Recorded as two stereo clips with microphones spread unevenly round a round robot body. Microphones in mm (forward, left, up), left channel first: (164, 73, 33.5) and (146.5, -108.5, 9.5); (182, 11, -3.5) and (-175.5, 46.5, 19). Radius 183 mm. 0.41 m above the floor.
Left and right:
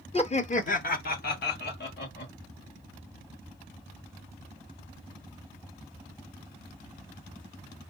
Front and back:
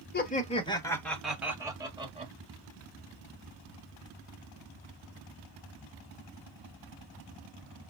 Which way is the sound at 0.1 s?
35° left.